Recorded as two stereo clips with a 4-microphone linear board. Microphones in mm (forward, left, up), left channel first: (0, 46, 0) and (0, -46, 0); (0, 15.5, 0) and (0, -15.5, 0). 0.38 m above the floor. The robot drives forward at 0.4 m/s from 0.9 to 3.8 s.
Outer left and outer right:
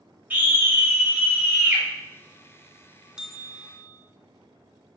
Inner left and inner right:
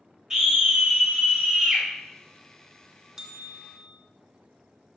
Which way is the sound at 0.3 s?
20° right (ahead or behind).